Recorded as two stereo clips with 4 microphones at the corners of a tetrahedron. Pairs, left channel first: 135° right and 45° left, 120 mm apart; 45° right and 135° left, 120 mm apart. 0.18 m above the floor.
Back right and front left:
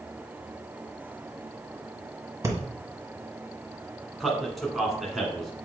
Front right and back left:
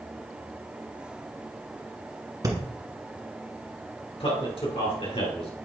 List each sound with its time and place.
2.4 s breathing: 95° left, 1.5 m
4.2 s a man speaking: 45° right, 2.0 m